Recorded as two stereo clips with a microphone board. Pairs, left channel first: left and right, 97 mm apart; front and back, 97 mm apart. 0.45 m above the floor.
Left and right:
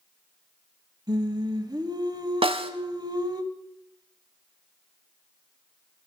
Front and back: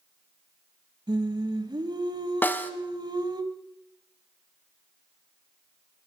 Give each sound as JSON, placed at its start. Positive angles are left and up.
{"t": 1.1, "sound": "singing", "azimuth_deg": -135, "distance_m": 1.0}
{"t": 2.4, "sound": "a snare drum", "azimuth_deg": -70, "distance_m": 0.9}